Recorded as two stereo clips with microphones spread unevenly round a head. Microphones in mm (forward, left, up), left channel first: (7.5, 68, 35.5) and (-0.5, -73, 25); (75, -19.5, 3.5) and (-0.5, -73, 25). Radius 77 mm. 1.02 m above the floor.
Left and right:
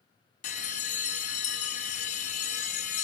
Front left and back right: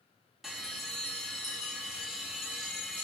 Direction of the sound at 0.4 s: 130° left.